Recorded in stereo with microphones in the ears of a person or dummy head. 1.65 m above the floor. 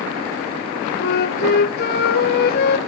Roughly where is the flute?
Left.